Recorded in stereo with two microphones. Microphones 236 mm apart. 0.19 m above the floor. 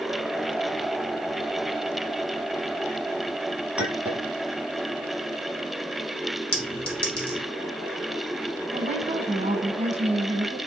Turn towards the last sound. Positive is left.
turn(degrees=-30)  # may be behind; listen again after turning